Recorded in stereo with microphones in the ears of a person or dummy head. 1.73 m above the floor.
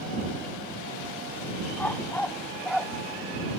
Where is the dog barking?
10° left (ahead or behind); by 2.9 s centre (ahead or behind).